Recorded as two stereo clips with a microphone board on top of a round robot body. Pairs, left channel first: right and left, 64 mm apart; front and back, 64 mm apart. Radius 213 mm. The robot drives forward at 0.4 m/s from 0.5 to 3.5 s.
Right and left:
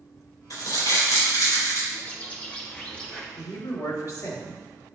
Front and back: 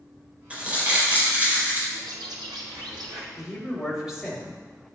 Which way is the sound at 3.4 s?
95° right.